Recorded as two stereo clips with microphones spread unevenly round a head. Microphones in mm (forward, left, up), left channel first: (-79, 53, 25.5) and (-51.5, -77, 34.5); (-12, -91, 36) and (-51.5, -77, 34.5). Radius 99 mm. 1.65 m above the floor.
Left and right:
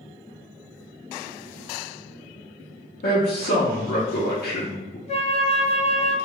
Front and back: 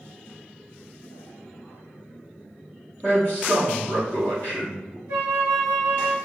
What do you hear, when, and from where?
3.0 s a man speaking: 95° left, 0.5 m
5.1 s a flute: 145° left, 0.7 m